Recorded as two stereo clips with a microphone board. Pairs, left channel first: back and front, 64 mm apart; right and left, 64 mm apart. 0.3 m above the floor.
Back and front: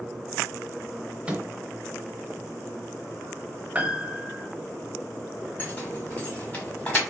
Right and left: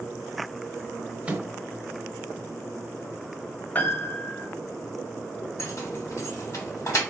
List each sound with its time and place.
1.3 s a microwave: 45° left, 0.8 m
3.8 s a piano: 50° right, 0.6 m
5.6 s keys jangling: 120° right, 1.6 m